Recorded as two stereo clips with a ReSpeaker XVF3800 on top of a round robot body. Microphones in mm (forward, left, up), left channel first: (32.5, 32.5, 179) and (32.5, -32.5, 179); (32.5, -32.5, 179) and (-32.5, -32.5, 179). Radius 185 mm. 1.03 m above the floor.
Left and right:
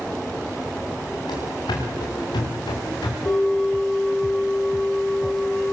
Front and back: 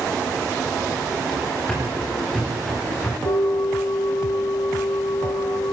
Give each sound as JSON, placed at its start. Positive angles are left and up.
{"t": 1.3, "sound": "running footsteps", "azimuth_deg": 85, "distance_m": 8.5}
{"t": 3.2, "sound": "a bell", "azimuth_deg": 20, "distance_m": 5.5}